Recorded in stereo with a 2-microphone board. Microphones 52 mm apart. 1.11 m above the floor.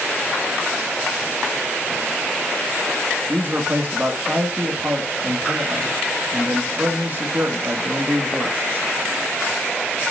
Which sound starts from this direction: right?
A man speaking, at 3.3 s.